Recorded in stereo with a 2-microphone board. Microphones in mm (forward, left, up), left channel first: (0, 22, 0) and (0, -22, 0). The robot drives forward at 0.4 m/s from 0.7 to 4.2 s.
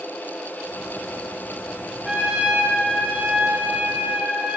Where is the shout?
No shout in this recording.